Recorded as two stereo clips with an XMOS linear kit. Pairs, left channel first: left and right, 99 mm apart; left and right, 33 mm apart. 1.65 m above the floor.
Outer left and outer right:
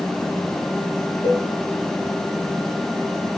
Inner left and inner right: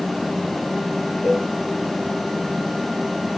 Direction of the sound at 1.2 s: 35° left (ahead or behind).